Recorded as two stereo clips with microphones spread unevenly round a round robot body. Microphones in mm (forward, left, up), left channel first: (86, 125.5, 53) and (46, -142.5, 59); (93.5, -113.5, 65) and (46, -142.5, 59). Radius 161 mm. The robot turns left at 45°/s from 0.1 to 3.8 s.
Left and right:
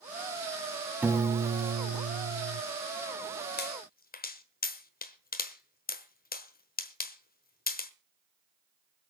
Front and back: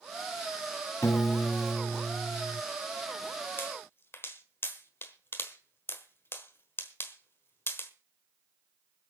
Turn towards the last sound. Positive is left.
turn(degrees=50)